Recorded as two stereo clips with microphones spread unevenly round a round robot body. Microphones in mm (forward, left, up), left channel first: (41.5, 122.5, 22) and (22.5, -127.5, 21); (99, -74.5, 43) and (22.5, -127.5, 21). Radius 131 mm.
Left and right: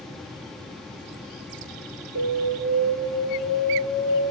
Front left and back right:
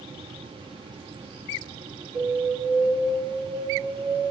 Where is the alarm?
135° right, 3.5 m.